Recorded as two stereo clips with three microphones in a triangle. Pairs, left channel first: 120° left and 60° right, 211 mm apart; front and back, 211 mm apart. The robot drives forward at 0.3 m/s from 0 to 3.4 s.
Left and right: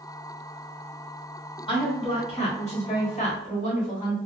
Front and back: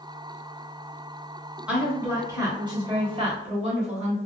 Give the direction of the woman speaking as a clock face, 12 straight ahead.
9 o'clock.